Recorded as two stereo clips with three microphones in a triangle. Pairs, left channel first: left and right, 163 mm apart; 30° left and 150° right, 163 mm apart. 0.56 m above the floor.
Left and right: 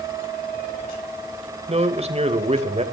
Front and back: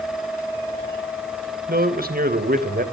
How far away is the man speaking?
About 3 m.